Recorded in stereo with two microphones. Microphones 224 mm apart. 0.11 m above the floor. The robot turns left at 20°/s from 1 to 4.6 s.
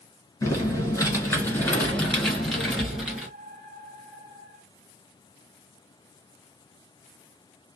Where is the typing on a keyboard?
15° left (ahead or behind), 1.3 m; by 3.3 s 5° right (ahead or behind), 1.3 m.